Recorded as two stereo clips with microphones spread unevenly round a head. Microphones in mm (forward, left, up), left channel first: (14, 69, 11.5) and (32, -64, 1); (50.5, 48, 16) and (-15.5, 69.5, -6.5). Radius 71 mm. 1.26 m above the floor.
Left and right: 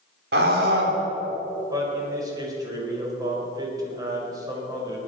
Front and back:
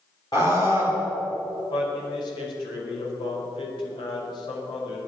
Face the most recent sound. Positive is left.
turn(degrees=-20)